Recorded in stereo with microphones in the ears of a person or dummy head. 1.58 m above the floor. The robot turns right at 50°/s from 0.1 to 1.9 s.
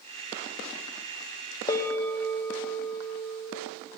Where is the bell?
25° left (ahead or behind), 0.7 m; by 3.5 s 15° left (ahead or behind), 0.7 m.